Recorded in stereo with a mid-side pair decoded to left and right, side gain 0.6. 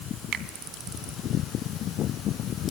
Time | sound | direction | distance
0.3 | a finger snap | 55° right | 3 m